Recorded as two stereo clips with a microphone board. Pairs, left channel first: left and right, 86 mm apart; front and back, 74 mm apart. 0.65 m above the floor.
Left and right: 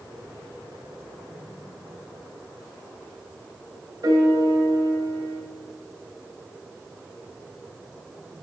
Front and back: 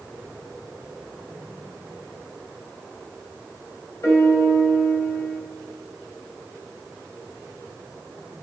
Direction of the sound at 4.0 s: 45° right.